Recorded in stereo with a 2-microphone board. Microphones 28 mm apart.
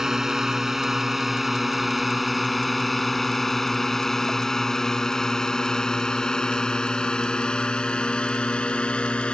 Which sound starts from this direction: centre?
A drone, at 0.0 s.